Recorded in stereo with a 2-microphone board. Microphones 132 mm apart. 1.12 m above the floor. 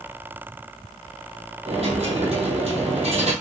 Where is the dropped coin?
50° right (ahead or behind), 1.9 m.